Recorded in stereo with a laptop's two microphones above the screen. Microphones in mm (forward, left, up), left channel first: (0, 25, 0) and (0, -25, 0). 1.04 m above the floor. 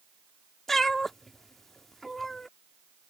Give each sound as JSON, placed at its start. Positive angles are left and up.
{"t": 0.7, "sound": "a cat meowing", "side_deg": 5}